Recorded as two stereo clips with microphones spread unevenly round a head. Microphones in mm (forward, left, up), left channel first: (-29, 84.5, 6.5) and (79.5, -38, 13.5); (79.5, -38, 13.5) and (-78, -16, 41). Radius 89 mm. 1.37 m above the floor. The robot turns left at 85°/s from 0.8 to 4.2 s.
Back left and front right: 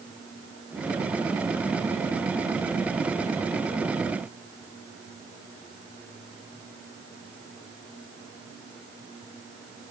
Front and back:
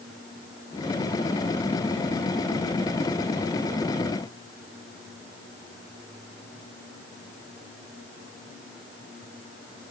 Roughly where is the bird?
I don't hear a bird.